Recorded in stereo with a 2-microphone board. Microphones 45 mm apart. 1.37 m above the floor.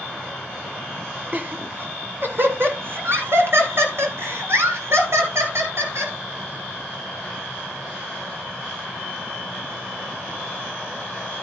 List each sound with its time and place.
1.3 s laughter: 35° right (ahead or behind), 1.8 m; by 6.1 s 75° right (ahead or behind), 5 m